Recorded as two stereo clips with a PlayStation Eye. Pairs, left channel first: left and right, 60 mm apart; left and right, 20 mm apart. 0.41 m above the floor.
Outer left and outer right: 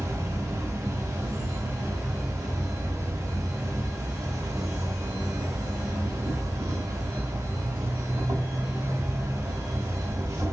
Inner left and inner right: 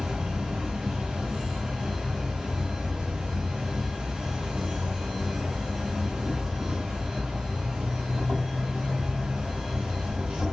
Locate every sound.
0.0 s an insect: 70° right (ahead or behind), 1.4 m